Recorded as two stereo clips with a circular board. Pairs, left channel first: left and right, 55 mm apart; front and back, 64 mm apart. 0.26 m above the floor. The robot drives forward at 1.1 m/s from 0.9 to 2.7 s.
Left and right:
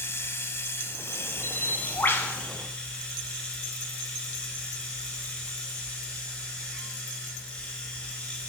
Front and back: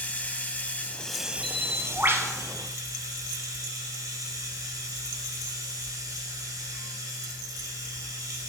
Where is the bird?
80° left, 0.8 m; by 2.3 s 140° left, 1.1 m.